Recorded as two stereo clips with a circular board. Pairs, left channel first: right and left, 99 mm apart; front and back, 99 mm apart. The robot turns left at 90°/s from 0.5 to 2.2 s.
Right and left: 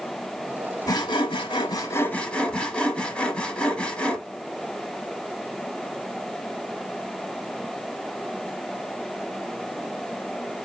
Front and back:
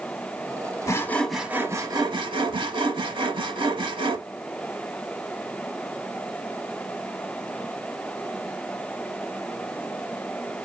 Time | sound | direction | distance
0.9 | sawing | 50° right | 0.9 m